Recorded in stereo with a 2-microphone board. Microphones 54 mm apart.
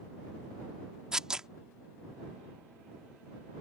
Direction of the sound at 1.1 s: 15° right (ahead or behind).